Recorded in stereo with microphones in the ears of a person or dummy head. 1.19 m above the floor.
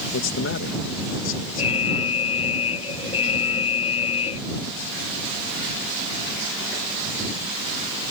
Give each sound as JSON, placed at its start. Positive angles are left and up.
{"t": 0.1, "sound": "a man speaking", "side_deg": 60}
{"t": 1.6, "sound": "an alarm", "side_deg": 30}